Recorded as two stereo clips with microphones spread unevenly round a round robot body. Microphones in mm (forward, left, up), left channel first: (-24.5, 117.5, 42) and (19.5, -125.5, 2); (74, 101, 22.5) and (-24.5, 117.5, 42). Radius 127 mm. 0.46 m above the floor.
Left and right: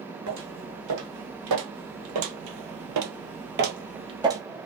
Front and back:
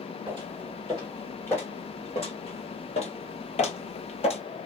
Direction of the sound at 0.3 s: 105° right.